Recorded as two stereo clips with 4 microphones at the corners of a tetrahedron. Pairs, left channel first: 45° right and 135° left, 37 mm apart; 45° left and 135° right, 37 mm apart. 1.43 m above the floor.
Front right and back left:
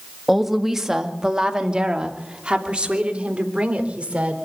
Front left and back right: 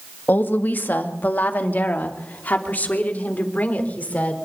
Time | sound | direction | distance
0.3 | a woman speaking | 55° left | 1.7 m